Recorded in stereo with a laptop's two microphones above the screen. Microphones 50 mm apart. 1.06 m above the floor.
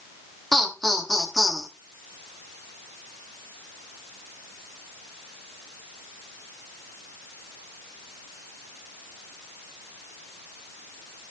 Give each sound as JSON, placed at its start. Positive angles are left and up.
{"t": 0.5, "sound": "laughter", "side_deg": 5, "distance_m": 1.5}